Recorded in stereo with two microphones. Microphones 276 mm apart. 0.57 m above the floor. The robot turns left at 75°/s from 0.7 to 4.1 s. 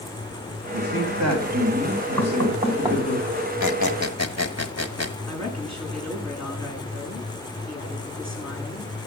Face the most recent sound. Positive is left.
turn(degrees=65)  # may be behind; listen again after turning